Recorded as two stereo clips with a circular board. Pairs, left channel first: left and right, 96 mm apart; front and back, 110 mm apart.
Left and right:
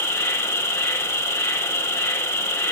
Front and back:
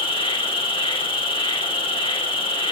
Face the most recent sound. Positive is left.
turn(degrees=35)